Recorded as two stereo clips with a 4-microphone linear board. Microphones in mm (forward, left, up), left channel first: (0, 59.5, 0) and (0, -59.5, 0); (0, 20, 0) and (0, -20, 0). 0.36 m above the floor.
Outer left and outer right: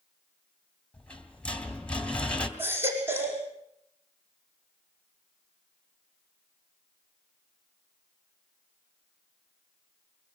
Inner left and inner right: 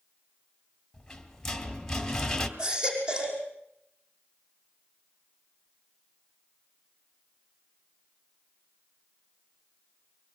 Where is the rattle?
10° left (ahead or behind), 2.5 m.